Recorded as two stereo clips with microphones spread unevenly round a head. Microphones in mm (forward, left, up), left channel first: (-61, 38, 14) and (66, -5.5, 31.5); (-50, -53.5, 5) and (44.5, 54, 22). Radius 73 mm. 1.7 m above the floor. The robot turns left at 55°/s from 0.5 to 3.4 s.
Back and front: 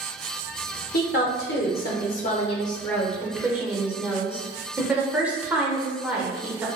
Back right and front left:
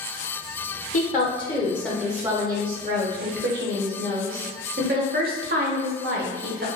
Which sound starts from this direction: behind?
A woman speaking, at 0.9 s.